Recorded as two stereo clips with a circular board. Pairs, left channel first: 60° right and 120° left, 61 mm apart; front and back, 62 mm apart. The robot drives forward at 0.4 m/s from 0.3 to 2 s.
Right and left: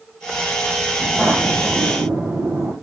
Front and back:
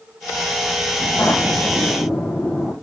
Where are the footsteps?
65° left, 2 m; by 2.7 s 95° left, 2.5 m.